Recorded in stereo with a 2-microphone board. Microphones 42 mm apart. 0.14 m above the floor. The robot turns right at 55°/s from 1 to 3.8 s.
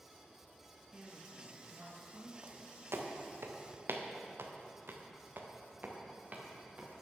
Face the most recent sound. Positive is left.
turn(degrees=-35)  # may be behind; listen again after turning